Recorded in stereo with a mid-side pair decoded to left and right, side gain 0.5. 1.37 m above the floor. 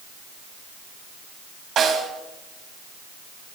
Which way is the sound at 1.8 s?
60° right.